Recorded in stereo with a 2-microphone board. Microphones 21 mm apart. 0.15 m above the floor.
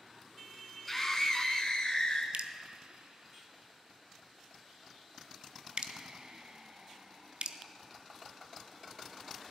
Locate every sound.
0.9 s a scream: 10° left (ahead or behind), 1.1 m; by 2.2 s 45° left (ahead or behind), 1.4 m
2.3 s dripping: 55° right (ahead or behind), 0.6 m